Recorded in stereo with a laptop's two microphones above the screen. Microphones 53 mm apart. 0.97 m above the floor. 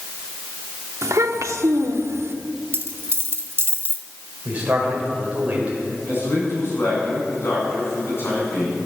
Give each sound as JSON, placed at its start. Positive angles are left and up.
{"t": 1.0, "sound": "a child speaking", "side_deg": -75, "distance_m": 1.2}
{"t": 2.7, "sound": "a dropped coin", "side_deg": -55, "distance_m": 1.7}
{"t": 4.5, "sound": "a man speaking", "side_deg": -25, "distance_m": 5.0}
{"t": 6.1, "sound": "a man speaking", "side_deg": 55, "distance_m": 7.5}